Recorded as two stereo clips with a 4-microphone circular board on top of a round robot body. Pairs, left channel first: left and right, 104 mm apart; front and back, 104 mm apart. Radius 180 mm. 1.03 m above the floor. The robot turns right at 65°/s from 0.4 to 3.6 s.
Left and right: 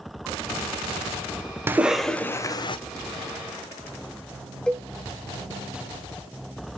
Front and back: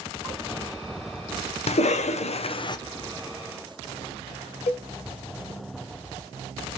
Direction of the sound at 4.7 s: 10° left.